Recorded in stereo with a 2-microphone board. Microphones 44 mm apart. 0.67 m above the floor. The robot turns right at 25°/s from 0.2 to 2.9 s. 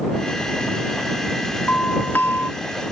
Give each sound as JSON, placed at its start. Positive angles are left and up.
{"t": 1.7, "sound": "a doorbell", "side_deg": 45}